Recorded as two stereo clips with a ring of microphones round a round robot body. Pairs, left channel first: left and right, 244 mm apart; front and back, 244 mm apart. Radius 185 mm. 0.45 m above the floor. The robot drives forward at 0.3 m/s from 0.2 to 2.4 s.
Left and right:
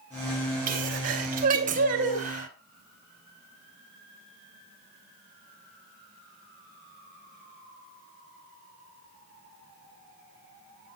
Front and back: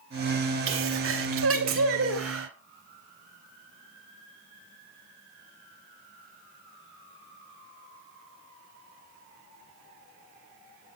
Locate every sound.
0.7 s a sneeze: 145° right, 3 m; by 2.5 s 150° right, 3.5 m